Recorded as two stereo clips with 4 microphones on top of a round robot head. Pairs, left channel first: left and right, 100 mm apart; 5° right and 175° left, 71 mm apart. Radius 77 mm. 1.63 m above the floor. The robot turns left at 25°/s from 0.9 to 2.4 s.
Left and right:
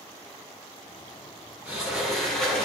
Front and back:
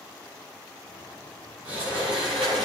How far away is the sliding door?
About 8.5 m.